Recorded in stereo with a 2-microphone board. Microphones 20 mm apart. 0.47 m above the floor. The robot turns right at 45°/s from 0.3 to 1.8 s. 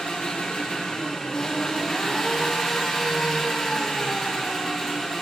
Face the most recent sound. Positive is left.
turn(degrees=170)